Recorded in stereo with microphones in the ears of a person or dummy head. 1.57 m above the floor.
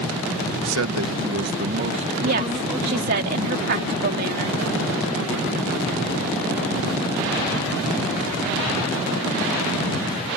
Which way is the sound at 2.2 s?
50° right (ahead or behind).